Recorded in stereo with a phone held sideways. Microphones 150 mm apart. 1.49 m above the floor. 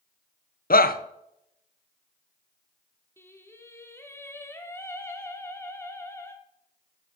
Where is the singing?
15° left (ahead or behind), 1.3 m.